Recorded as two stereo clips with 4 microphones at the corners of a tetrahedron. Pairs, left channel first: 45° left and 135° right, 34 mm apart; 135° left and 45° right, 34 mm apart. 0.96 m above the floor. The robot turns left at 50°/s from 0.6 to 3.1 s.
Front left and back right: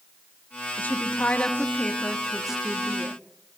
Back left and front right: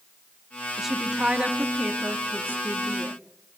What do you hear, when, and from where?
0.8 s a woman speaking: 35° left, 1.5 m; by 3.1 s 85° right, 1.5 m